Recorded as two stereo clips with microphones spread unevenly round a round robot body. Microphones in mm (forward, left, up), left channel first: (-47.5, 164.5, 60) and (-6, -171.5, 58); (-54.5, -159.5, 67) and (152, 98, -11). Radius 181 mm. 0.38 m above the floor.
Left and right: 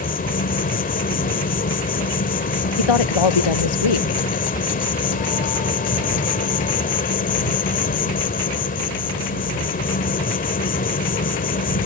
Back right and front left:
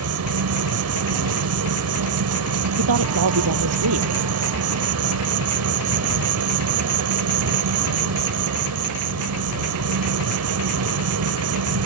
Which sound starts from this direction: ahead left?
An insect, at 0.0 s.